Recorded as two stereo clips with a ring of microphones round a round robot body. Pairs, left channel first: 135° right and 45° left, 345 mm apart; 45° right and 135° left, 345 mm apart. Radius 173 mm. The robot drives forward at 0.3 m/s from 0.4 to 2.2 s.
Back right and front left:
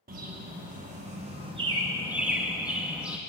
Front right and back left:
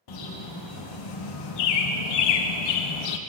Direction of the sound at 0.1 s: 20° right.